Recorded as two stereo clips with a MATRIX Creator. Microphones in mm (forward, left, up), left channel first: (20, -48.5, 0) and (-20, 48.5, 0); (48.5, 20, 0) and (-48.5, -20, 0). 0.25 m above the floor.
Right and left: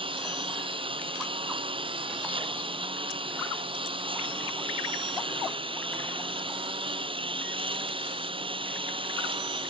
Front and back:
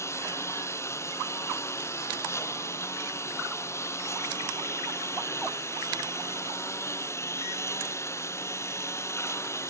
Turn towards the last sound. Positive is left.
turn(degrees=85)